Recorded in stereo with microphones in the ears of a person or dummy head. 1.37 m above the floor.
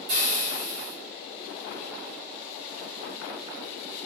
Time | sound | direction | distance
0.1 | frying | 40° right (ahead or behind) | 0.8 m